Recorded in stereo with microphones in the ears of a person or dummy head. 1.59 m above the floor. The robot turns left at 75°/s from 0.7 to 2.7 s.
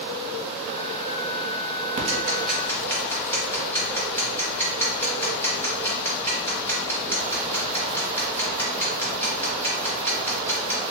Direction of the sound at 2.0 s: 40° right (ahead or behind).